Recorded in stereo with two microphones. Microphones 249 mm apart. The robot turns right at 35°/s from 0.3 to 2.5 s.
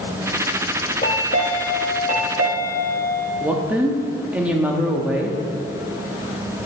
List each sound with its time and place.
1.0 s a chime: 45° left, 0.7 m; by 3.3 s 100° left, 0.7 m
3.4 s a woman speaking: 5° right (ahead or behind), 0.7 m